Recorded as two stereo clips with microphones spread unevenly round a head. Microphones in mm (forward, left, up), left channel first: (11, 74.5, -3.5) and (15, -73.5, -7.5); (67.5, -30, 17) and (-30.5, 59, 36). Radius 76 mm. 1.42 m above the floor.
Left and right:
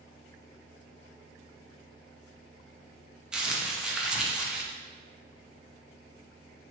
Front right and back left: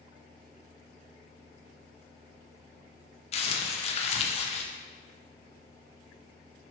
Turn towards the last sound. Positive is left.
turn(degrees=-5)